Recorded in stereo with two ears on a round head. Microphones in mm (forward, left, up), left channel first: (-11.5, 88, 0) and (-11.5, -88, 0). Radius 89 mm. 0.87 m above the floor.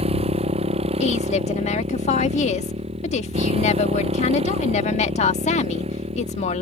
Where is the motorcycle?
30° right (ahead or behind).